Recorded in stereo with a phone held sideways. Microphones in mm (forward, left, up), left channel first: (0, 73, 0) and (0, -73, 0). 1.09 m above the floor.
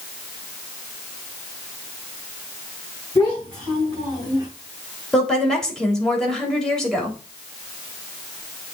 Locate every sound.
3.1 s a child speaking: 10° left (ahead or behind), 5 m; by 4.5 s 5° right (ahead or behind), 4.5 m
5.1 s a woman speaking: 5° left (ahead or behind), 3 m